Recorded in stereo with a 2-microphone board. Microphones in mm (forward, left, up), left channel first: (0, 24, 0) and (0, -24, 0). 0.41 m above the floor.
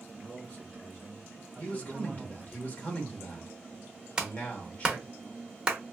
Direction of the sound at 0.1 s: 25° left (ahead or behind).